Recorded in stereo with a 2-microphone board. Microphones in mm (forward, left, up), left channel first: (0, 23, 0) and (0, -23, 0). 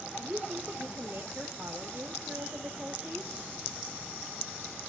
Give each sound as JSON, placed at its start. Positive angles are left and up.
{"t": 0.2, "sound": "a woman speaking", "side_deg": -40, "distance_m": 1.6}